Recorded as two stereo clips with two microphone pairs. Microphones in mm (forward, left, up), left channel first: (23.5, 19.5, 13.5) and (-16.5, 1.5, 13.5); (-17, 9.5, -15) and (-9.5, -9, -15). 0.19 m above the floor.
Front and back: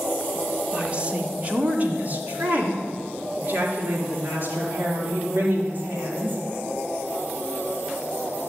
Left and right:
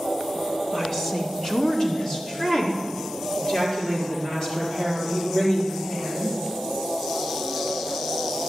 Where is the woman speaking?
170° left, 1.5 m; by 6.4 s 160° left, 5.5 m.